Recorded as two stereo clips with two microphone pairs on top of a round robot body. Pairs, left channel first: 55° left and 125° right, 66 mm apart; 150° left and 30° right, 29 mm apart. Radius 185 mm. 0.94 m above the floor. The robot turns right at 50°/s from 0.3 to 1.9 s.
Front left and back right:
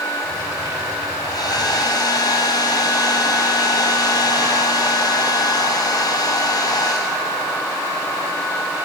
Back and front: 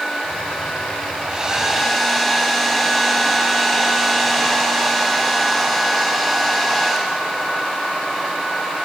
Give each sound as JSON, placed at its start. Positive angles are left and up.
{"t": 1.2, "sound": "a hair dryer", "azimuth_deg": 35, "distance_m": 7.0}